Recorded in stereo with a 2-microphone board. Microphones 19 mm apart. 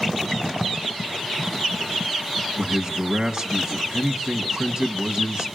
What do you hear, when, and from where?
2.6 s a man speaking: 30° right (ahead or behind), 2 m